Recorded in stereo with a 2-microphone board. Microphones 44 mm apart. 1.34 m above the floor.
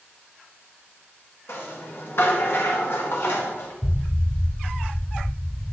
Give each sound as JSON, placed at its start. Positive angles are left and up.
{"t": 1.5, "sound": "a rattle", "side_deg": 65, "distance_m": 2.0}
{"t": 3.8, "sound": "an explosion", "side_deg": 60, "distance_m": 0.6}